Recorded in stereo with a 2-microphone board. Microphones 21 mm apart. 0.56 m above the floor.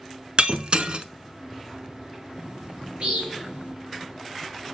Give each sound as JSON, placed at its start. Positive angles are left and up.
{"t": 0.4, "sound": "breaking glass", "side_deg": -55, "distance_m": 0.7}
{"t": 2.4, "sound": "a bird", "side_deg": -75, "distance_m": 4.0}